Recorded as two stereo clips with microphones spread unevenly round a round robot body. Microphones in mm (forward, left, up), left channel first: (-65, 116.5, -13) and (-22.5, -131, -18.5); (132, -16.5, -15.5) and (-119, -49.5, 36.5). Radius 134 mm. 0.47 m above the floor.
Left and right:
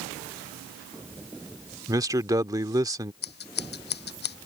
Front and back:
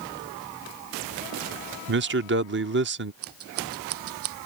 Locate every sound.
1.9 s a man speaking: 145° right
3.2 s scissors: 150° left